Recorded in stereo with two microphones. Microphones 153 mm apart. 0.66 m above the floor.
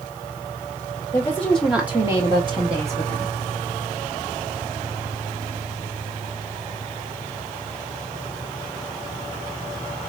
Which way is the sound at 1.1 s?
20° left (ahead or behind).